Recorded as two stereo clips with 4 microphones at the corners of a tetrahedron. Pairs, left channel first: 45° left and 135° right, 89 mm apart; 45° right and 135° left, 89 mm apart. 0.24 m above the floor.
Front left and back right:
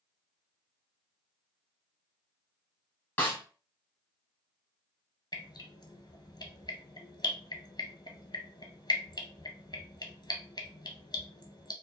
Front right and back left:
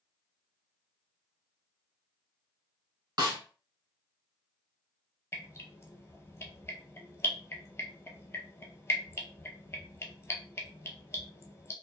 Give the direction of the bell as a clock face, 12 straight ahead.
I don't hear a bell.